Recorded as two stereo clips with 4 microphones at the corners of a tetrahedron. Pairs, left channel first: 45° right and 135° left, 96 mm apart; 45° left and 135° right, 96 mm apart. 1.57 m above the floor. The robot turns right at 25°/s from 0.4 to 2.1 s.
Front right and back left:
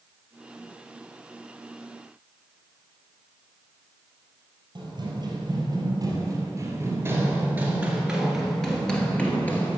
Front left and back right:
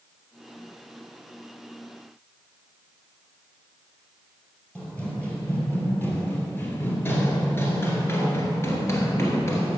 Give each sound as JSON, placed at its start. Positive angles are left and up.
{"t": 4.8, "sound": "running footsteps", "azimuth_deg": 120, "distance_m": 2.5}